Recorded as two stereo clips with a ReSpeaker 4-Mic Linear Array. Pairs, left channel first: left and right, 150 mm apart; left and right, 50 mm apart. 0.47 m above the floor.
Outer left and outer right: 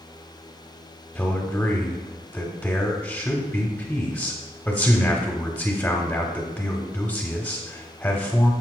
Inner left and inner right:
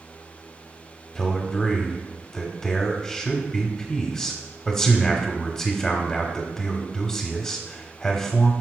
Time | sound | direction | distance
1.1 | a man speaking | 10° left (ahead or behind) | 1.0 m